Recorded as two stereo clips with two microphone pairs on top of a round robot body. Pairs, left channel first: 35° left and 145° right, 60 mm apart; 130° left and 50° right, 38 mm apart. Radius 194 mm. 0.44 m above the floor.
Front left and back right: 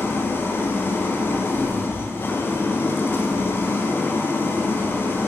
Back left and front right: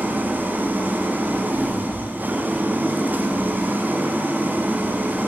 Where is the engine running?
20° right, 1.1 m.